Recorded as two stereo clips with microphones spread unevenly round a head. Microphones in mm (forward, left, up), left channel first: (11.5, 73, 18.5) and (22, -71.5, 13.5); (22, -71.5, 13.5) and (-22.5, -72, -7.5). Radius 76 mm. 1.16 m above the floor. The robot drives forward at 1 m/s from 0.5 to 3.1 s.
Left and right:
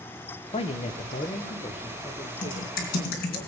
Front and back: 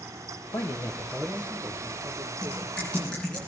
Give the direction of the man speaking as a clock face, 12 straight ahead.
10 o'clock.